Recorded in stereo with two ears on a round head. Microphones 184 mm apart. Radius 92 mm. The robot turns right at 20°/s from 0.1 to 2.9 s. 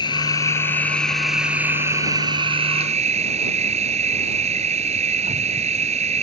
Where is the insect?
160° left; by 6.2 s 145° right.